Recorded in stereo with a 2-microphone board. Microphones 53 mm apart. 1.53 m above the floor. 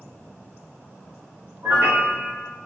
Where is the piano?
45° right (ahead or behind), 0.9 m.